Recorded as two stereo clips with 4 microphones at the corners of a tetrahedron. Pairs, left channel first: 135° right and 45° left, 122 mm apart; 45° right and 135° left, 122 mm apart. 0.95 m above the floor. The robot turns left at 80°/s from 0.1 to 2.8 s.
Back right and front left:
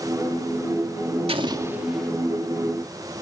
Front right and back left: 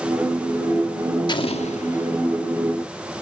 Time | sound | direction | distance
1.3 | an explosion | 5° left | 1.6 m